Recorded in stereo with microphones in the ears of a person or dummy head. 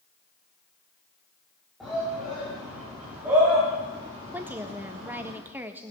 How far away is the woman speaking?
About 1.4 m.